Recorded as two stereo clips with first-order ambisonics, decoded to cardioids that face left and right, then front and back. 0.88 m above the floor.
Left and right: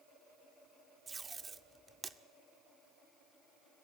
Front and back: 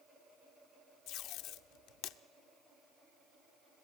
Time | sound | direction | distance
1.1 | tape being pulled | 20° right | 0.6 m